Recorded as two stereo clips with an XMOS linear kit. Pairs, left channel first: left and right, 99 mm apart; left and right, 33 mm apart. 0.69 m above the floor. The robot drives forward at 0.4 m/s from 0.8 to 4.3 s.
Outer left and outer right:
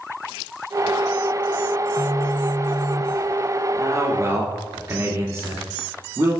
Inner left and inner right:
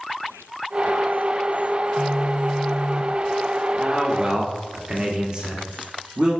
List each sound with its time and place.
2.0 s a phone buzzing: 30° left (ahead or behind), 0.7 m
3.7 s a man speaking: 35° right (ahead or behind), 1.2 m; by 6.4 s 30° right (ahead or behind), 1.4 m